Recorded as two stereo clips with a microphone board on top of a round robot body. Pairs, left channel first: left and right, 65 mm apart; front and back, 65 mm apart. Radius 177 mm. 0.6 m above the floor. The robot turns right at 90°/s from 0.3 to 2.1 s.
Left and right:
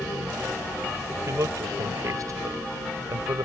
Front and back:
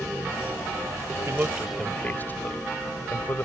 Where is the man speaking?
135° right; by 3.5 s 60° right.